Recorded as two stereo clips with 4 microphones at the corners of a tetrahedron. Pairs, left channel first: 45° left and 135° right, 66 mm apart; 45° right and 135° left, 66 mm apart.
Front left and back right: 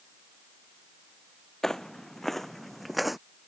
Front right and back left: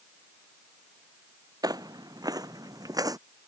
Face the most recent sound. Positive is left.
turn(degrees=135)